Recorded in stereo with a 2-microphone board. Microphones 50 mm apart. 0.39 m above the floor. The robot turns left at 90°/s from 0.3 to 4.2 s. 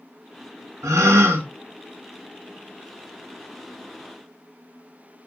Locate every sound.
0.8 s a gasp: 75° right, 0.5 m; by 1.5 s 135° right, 0.5 m